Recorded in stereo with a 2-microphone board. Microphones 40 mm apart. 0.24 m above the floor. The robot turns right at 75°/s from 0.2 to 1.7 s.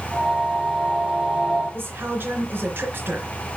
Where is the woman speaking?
60° right (ahead or behind), 3 m.